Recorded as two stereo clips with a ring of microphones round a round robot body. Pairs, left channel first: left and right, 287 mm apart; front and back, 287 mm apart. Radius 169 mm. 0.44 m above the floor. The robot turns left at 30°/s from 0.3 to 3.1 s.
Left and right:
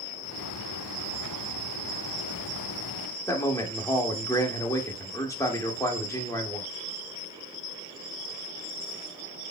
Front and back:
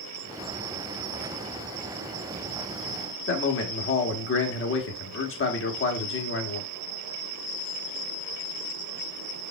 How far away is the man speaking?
About 1.4 m.